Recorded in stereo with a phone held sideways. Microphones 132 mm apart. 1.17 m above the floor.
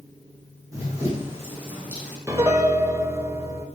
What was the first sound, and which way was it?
Running footsteps, 25° right (ahead or behind).